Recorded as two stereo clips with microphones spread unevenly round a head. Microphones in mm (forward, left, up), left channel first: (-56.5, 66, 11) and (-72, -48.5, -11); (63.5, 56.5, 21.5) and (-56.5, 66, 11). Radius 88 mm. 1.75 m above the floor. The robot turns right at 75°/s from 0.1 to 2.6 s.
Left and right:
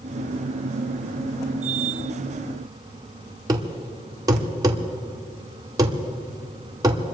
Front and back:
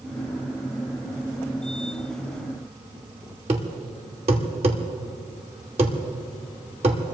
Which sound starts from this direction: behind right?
A thud, at 3.5 s.